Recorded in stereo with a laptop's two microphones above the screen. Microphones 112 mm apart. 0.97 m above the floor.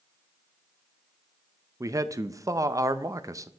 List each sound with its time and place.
1.8 s a man speaking: 30° right (ahead or behind), 0.5 m